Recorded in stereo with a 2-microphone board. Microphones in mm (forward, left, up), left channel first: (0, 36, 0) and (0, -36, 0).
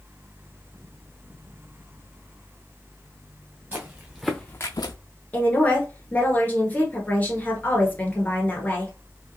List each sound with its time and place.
3.7 s footsteps: 30° right (ahead or behind), 1.4 m; by 5.0 s 75° left (ahead or behind), 0.8 m
5.3 s a woman speaking: 25° left (ahead or behind), 1.4 m